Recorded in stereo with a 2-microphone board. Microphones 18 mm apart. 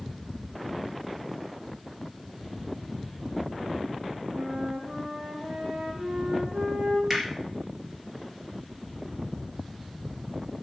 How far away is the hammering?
About 4 m.